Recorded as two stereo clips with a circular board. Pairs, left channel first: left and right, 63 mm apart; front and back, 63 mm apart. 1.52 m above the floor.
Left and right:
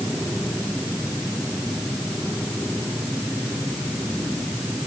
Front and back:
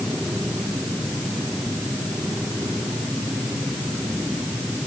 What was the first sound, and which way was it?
Only background noise.